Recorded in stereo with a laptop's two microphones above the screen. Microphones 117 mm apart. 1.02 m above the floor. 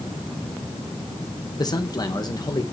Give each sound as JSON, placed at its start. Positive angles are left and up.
{"t": 1.6, "sound": "a man speaking", "side_deg": 35, "distance_m": 1.1}